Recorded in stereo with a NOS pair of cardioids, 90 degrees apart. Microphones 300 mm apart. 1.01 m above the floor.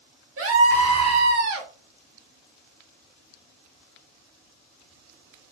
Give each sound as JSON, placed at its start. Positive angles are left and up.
{"t": 0.4, "sound": "a scream", "azimuth_deg": -50, "distance_m": 1.5}